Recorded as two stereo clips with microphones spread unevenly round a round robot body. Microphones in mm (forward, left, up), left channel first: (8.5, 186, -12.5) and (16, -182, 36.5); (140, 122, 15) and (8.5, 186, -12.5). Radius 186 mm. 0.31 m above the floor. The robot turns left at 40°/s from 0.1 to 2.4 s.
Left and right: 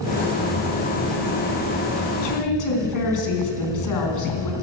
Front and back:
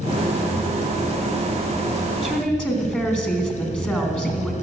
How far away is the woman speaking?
About 3.5 m.